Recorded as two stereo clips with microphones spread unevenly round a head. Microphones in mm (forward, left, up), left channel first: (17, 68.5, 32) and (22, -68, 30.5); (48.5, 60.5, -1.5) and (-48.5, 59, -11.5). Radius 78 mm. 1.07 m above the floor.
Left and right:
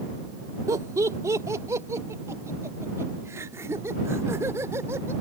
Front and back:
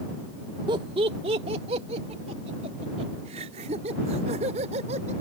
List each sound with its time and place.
0.7 s laughter: 150° right; by 5.1 s 160° right